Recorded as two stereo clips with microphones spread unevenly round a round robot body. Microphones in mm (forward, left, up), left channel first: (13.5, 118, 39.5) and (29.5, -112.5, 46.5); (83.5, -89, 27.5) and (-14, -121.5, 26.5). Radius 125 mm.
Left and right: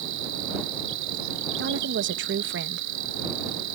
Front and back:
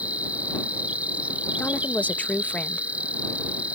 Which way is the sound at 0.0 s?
85° right.